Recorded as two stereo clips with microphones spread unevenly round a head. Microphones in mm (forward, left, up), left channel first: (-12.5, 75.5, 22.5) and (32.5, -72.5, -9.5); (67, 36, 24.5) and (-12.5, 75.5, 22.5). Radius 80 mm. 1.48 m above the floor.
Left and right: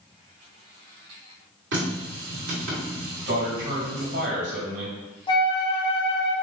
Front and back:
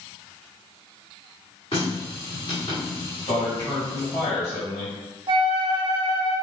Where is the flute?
175° left, 0.6 m.